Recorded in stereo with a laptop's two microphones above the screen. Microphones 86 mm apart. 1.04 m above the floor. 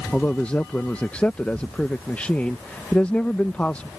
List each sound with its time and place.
0.1 s a man speaking: 15° left (ahead or behind)